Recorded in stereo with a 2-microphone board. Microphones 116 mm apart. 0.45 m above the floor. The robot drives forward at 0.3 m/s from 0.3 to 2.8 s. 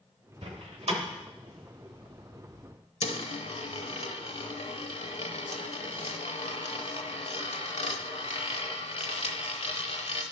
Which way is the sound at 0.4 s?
65° right (ahead or behind).